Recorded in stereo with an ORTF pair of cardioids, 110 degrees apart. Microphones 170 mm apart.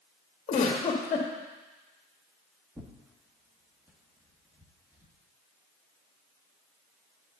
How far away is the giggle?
About 1.6 m.